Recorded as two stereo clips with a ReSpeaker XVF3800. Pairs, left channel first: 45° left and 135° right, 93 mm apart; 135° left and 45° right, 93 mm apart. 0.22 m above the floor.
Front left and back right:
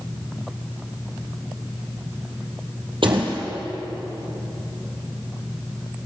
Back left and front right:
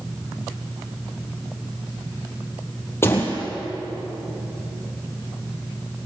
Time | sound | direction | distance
3.0 | a door slam | 160° right | 5 m